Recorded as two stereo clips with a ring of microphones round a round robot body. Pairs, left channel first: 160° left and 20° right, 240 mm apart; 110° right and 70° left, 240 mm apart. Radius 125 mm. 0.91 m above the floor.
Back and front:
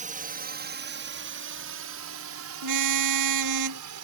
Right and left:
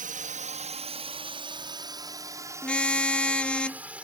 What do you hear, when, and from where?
0.0 s a drone: 25° left; by 4.0 s 20° right
2.6 s a car horn: 25° right